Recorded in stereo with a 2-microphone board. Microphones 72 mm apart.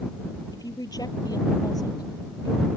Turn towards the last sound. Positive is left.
turn(degrees=60)  # may be behind; listen again after turning